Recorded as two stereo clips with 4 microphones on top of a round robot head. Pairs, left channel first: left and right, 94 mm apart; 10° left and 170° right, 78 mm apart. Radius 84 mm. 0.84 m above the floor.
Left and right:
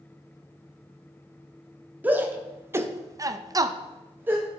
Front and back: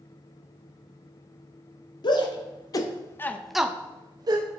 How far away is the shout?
About 2 m.